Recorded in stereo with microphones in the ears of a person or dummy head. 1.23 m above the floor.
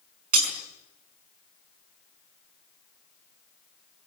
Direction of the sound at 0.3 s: 45° right (ahead or behind).